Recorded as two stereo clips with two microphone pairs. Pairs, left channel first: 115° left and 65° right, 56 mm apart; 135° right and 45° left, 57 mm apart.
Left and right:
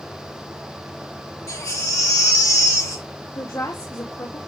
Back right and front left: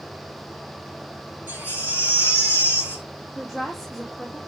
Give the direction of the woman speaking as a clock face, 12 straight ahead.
8 o'clock.